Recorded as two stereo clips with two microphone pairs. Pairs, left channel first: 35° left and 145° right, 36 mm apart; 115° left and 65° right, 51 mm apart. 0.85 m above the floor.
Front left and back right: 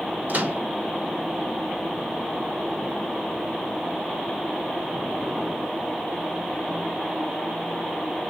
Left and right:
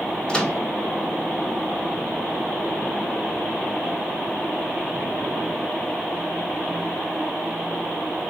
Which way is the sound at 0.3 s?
175° right.